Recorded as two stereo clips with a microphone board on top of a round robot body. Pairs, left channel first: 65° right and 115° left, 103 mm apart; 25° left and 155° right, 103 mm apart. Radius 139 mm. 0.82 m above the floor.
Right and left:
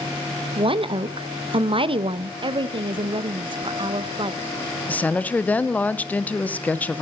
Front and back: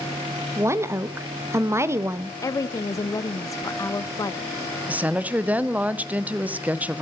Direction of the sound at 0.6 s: 140° left.